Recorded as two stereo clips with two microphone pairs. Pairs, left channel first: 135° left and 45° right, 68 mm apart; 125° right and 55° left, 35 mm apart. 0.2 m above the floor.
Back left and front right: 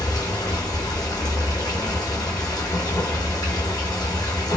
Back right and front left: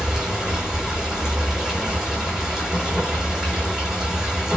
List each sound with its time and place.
0.0 s running water: 125° left, 1.2 m